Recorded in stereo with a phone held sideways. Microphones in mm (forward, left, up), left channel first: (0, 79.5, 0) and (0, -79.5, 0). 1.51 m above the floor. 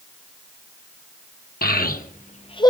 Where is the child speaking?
70° left (ahead or behind), 1.3 m; by 2.7 s 25° left (ahead or behind), 0.8 m.